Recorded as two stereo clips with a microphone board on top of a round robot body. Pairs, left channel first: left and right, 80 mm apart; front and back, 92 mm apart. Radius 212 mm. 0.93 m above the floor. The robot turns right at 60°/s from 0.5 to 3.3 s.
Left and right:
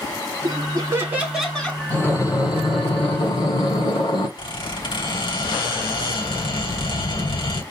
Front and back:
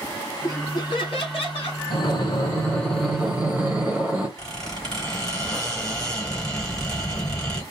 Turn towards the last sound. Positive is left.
turn(degrees=85)